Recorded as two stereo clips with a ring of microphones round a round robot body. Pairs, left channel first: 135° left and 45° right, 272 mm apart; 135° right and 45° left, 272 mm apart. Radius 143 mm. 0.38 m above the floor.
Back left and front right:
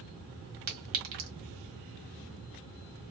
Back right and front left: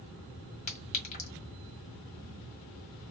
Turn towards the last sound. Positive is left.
turn(degrees=-75)